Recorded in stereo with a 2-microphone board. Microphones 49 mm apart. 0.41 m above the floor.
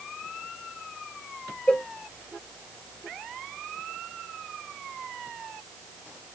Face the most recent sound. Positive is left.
turn(degrees=20)  # may be behind; listen again after turning